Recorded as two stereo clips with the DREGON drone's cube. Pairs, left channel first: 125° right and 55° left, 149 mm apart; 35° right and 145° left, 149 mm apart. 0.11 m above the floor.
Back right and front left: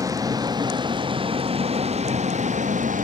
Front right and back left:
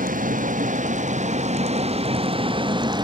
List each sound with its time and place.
0.0 s a vehicle: 125° left; by 3.0 s 85° left